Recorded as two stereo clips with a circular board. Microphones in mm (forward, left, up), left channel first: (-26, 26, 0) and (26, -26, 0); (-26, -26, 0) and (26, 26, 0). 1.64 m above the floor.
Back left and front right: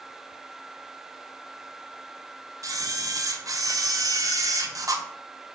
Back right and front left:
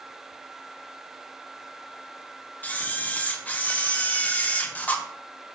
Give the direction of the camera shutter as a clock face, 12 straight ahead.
2 o'clock.